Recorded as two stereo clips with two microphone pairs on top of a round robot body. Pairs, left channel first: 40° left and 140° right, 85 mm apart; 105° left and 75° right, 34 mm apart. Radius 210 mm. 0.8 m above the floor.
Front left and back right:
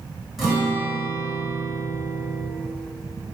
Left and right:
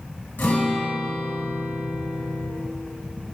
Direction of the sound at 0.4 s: 135° left.